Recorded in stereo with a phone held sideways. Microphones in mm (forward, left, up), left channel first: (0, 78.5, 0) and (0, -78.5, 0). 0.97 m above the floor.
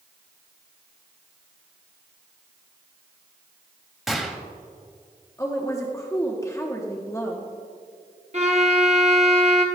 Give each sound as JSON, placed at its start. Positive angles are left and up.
{"t": 4.1, "sound": "a gunshot", "side_deg": 0, "distance_m": 0.9}
{"t": 5.4, "sound": "a woman speaking", "side_deg": 20, "distance_m": 0.9}
{"t": 8.3, "sound": "a violin", "side_deg": -45, "distance_m": 1.0}